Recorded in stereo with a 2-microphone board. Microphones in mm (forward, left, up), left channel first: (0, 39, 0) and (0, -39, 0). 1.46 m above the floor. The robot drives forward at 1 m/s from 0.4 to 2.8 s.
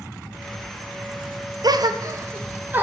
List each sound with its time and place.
1.6 s a gasp: 60° right (ahead or behind), 0.6 m; by 2.8 s 25° right (ahead or behind), 1.3 m